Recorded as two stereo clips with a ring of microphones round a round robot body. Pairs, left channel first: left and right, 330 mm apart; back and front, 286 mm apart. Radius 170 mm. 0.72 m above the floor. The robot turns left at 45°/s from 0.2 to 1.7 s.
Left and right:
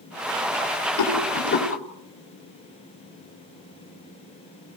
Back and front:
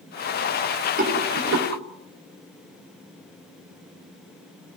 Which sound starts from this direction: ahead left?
A rattle, at 1.0 s.